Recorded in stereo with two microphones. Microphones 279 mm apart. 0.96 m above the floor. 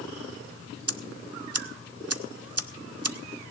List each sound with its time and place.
0.9 s ticking: 60° right (ahead or behind), 0.5 m